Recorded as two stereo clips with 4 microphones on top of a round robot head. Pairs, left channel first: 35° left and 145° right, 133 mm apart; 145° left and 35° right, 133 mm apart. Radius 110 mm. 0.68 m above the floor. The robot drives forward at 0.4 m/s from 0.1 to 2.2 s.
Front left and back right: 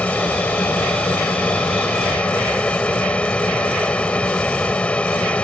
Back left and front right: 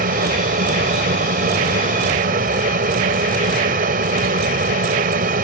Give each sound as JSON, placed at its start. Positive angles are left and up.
{"t": 0.0, "sound": "an aircraft", "azimuth_deg": -45}